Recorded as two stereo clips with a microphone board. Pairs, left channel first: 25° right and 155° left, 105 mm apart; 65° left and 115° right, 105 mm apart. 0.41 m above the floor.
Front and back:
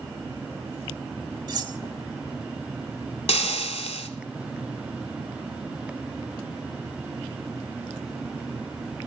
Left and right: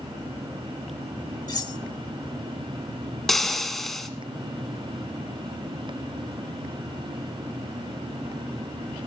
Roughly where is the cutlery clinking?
Behind left.